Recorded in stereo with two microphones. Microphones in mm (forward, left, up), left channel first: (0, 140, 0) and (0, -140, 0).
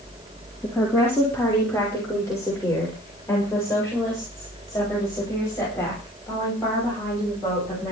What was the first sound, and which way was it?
A woman speaking, 5° left (ahead or behind).